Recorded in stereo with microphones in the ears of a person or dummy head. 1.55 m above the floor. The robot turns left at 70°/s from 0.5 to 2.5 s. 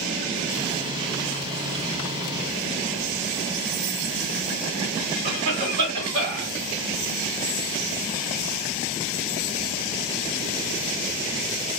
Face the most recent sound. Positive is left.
turn(degrees=-40)  # may be behind; listen again after turning